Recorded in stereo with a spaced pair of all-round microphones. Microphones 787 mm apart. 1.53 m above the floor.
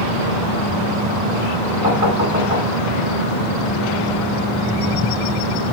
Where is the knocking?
40° left (ahead or behind), 5 m.